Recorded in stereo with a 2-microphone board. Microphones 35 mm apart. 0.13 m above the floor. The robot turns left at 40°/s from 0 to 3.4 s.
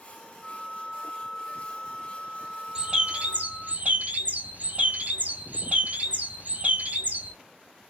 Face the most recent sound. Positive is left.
turn(degrees=-50)  # may be behind; listen again after turning